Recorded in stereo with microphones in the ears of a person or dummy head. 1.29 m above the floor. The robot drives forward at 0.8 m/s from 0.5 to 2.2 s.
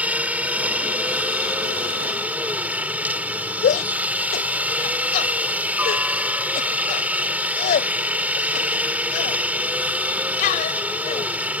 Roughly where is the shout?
Left.